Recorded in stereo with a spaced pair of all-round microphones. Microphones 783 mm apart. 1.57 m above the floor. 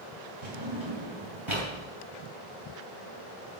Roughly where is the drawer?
Right.